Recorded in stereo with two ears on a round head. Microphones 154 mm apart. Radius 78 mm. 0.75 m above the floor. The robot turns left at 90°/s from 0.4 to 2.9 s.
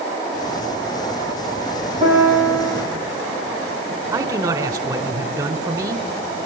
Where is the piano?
30° right, 8 m; by 2.8 s 105° right, 8 m.